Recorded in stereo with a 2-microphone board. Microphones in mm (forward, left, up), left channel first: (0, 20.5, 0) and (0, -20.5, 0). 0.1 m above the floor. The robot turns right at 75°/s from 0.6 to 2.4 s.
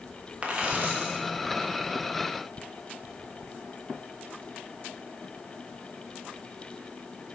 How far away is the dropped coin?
About 5 m.